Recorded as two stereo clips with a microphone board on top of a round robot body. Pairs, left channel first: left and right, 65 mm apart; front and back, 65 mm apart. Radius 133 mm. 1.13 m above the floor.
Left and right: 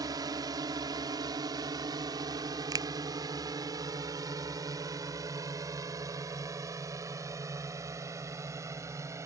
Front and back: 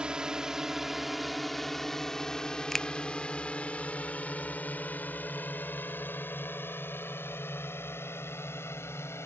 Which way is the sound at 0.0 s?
105° right.